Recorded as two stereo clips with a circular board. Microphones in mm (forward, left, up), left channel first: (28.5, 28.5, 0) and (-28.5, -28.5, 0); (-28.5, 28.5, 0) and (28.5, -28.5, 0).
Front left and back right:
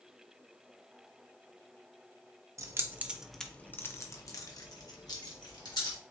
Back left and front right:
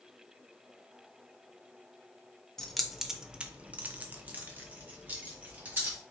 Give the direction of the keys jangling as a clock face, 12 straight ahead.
5 o'clock.